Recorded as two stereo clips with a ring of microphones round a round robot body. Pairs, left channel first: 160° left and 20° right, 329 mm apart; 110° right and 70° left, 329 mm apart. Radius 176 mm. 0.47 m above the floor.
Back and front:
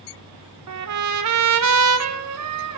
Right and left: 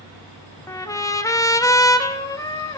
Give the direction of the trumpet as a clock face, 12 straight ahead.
1 o'clock.